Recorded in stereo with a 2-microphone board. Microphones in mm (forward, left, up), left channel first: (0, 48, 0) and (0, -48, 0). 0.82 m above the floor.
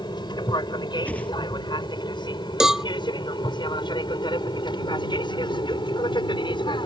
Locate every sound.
0.0 s an aircraft: 50° left (ahead or behind); by 6.9 s 55° left (ahead or behind)
1.1 s a whoosh: 15° left (ahead or behind)
2.6 s a cowbell: 5° right (ahead or behind)